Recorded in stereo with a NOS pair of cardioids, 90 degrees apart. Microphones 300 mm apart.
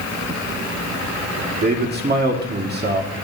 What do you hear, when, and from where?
1.6 s a man speaking: 30° right, 2 m